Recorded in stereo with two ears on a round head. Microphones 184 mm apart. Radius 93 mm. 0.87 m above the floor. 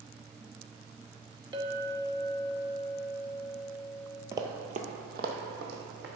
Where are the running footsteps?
15° right (ahead or behind), 0.9 m; by 6.0 s 60° right (ahead or behind), 2.5 m.